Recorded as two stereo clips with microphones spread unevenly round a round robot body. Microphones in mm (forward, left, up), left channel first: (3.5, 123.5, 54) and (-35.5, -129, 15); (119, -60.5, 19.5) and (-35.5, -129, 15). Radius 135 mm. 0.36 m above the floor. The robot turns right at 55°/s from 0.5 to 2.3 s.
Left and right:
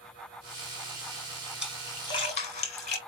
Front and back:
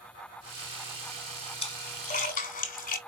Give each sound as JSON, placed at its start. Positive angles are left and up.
{"t": 1.6, "sound": "a splash", "azimuth_deg": -20, "distance_m": 1.6}